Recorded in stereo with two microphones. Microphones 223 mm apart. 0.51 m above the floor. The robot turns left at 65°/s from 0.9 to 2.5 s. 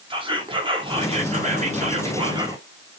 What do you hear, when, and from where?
0.1 s whispering: 45° right, 0.7 m; by 2.6 s 150° right, 0.7 m